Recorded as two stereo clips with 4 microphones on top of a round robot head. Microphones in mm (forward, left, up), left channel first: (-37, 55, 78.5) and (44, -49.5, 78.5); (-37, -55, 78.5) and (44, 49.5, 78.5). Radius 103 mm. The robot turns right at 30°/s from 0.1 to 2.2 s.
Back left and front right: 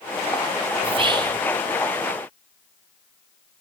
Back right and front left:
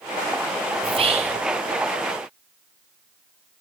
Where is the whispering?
Straight ahead, 0.9 m; by 1.4 s 15° left, 0.9 m.